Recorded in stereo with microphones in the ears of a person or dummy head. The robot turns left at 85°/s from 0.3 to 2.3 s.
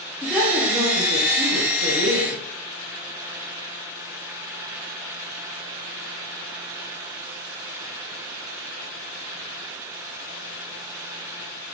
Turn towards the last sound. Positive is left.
turn(degrees=-155)